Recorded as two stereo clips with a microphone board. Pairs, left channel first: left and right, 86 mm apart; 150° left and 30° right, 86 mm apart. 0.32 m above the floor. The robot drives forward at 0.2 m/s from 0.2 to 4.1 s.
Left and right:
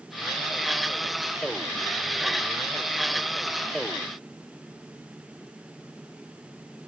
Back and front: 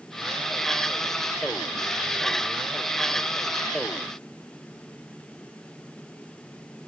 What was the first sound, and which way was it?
Only background noise.